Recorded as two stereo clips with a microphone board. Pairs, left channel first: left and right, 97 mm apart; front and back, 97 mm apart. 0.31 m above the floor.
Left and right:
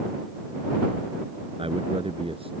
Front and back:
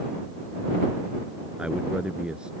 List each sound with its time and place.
1.6 s a man speaking: 100° right